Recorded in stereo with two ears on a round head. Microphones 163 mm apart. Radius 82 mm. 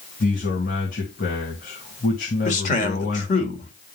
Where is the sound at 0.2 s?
55° left (ahead or behind), 2 m.